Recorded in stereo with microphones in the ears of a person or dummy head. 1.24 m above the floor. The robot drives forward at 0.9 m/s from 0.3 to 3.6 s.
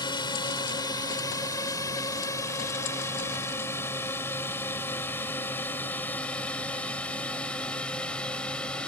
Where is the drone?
25° left (ahead or behind); by 8.9 s 10° left (ahead or behind).